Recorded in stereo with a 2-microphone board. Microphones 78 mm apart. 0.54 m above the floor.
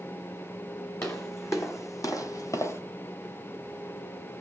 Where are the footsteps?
35° left (ahead or behind), 1.6 m.